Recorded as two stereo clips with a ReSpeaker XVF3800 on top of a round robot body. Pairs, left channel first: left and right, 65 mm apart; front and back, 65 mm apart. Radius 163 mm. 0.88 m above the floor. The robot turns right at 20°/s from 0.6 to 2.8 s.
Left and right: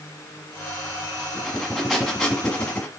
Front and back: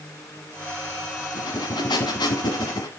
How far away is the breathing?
About 1.2 m.